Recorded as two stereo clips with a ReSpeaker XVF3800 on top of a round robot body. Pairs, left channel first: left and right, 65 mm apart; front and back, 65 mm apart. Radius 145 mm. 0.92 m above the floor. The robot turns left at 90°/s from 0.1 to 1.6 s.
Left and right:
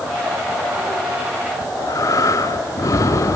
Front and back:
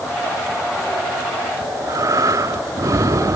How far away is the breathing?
About 1.1 m.